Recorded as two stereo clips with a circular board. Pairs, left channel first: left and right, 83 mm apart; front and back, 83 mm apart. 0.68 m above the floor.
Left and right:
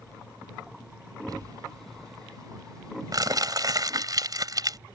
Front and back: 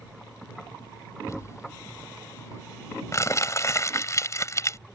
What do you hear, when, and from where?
1.3 s crumpling: 50° right